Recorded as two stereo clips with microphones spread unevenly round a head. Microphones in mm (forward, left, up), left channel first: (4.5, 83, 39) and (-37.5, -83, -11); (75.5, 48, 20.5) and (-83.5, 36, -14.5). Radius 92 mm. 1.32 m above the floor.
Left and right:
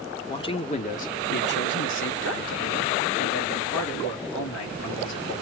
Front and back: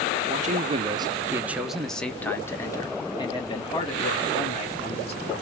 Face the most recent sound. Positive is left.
turn(degrees=55)